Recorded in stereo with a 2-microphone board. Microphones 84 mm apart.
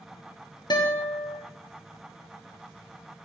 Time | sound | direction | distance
0.7 | a guitar | 60° left (ahead or behind) | 0.9 m